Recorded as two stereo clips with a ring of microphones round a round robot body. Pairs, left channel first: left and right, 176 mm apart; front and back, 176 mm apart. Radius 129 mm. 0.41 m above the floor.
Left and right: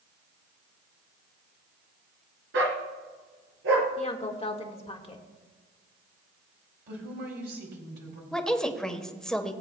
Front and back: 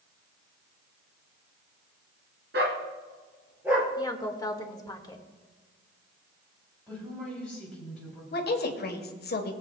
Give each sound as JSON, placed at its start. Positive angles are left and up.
{"t": 2.5, "sound": "a dog barking", "azimuth_deg": -130, "distance_m": 1.6}
{"t": 4.0, "sound": "a woman speaking", "azimuth_deg": 55, "distance_m": 1.6}
{"t": 6.9, "sound": "a woman speaking", "azimuth_deg": -85, "distance_m": 3.0}
{"t": 8.3, "sound": "a woman speaking", "azimuth_deg": 5, "distance_m": 1.4}